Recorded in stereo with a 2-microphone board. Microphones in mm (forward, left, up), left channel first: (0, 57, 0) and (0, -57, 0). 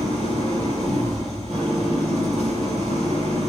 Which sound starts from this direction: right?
An engine running, at 0.0 s.